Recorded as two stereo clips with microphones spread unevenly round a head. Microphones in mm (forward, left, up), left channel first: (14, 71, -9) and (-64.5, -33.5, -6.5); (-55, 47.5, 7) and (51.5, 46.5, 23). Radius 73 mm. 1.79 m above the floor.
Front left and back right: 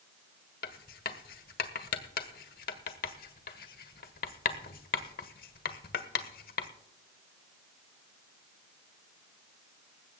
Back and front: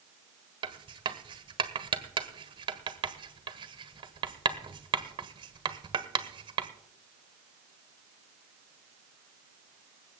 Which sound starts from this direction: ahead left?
Writing, at 0.6 s.